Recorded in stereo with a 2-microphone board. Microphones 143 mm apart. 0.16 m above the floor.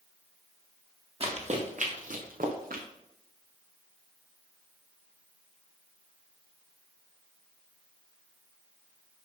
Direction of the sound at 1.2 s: 45° right (ahead or behind).